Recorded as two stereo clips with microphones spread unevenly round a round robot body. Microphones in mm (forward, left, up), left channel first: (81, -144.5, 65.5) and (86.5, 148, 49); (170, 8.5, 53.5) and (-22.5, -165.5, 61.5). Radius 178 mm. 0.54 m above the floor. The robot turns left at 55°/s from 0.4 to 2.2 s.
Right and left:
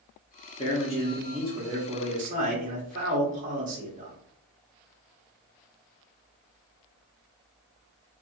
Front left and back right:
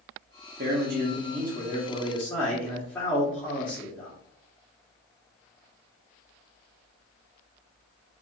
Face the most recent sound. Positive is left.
turn(degrees=120)